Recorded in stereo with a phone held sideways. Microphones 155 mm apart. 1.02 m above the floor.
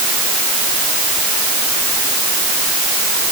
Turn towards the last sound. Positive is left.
No sound to turn to.